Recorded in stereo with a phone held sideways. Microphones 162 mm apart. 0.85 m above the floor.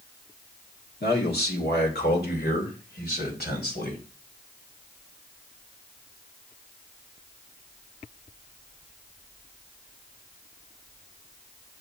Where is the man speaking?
75° left (ahead or behind), 1.4 m; by 4.0 s 70° left (ahead or behind), 3 m.